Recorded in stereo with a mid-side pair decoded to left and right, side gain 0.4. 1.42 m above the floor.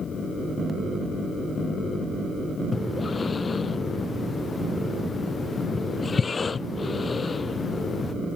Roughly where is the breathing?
Ahead left.